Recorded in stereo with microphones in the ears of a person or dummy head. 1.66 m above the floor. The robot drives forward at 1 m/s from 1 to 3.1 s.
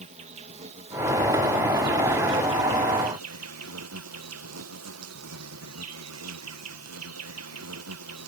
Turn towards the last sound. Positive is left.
turn(degrees=-85)